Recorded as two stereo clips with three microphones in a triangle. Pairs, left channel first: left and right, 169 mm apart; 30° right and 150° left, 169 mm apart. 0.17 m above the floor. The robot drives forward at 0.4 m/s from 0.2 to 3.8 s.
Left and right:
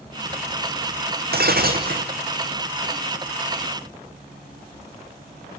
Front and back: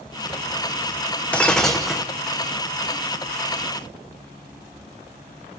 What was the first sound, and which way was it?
Breaking glass, 110° right.